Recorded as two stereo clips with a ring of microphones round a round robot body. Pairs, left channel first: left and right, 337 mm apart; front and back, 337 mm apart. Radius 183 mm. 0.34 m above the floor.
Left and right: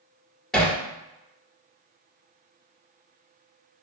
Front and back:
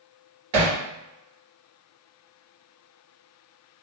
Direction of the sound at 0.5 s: Straight behind.